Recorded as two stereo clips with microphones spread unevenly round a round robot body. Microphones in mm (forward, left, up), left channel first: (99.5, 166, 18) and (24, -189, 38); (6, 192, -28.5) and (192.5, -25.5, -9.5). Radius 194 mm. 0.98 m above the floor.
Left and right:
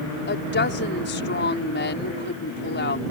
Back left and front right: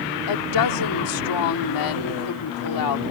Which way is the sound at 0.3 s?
140° left.